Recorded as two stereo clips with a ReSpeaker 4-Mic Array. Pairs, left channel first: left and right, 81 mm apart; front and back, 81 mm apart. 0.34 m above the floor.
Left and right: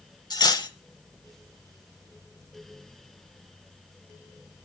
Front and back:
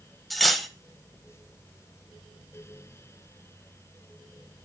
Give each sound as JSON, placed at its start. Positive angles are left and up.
{"t": 0.3, "sound": "cutlery clinking", "azimuth_deg": 90, "distance_m": 0.9}